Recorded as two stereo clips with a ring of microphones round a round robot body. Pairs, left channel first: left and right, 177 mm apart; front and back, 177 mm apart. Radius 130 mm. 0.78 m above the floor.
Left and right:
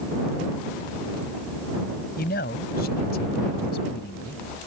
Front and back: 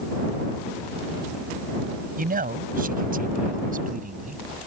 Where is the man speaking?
145° left; by 4.4 s 140° left.